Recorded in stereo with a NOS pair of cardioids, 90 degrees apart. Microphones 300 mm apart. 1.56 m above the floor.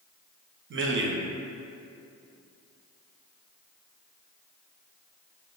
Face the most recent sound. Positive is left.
turn(degrees=-40)